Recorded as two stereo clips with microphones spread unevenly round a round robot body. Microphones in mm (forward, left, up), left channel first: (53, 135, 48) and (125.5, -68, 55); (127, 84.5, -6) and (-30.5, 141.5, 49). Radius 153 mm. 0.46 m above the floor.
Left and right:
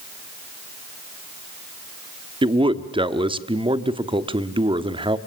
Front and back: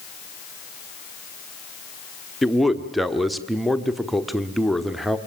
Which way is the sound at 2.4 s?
50° right.